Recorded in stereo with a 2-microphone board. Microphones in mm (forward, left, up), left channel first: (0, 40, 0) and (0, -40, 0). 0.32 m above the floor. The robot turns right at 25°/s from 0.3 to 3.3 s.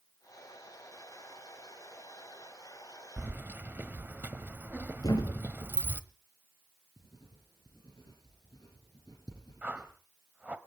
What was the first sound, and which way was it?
Keys jangling, 25° right (ahead or behind).